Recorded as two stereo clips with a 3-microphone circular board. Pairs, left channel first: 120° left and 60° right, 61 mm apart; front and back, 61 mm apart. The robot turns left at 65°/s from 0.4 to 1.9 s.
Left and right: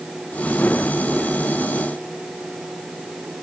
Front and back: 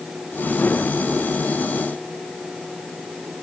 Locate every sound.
Only background noise.